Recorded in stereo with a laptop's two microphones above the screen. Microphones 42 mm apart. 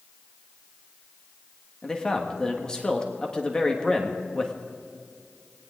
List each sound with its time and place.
1.8 s a man speaking: 20° left (ahead or behind), 1.4 m